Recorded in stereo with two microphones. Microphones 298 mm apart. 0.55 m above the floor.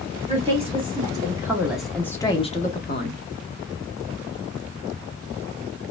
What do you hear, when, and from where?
0.3 s a woman speaking: 20° right (ahead or behind), 1.6 m; by 3.2 s 40° left (ahead or behind), 0.8 m